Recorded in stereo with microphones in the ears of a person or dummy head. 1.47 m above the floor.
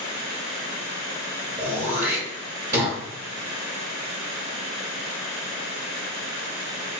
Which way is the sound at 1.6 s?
20° right (ahead or behind).